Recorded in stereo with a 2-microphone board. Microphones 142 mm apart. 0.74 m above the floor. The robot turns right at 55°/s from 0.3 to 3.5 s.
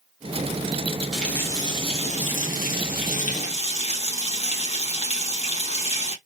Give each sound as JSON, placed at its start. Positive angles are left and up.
{"t": 1.1, "sound": "a running tap", "azimuth_deg": 0, "distance_m": 1.3}